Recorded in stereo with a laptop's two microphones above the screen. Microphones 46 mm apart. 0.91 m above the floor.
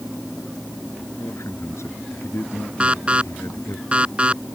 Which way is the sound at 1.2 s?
90° left.